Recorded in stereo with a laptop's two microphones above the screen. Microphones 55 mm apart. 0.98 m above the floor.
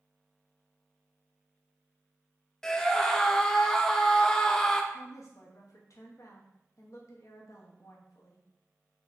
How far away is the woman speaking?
About 0.9 m.